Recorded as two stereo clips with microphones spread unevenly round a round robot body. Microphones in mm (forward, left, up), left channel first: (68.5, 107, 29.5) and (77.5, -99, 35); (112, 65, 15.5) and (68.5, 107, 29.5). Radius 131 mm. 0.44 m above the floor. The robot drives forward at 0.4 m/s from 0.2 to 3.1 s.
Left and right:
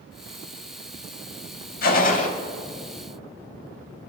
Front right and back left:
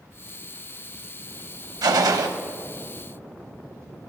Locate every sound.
1.8 s a gunshot: 145° left, 0.7 m; by 2.3 s 150° left, 0.9 m